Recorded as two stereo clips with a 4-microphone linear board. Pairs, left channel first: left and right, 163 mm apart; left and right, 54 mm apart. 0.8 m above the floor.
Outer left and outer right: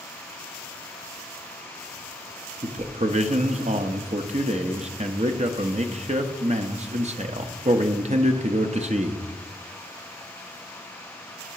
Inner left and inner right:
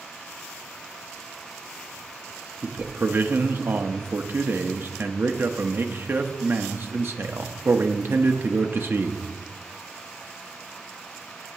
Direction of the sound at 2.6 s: 45° right (ahead or behind).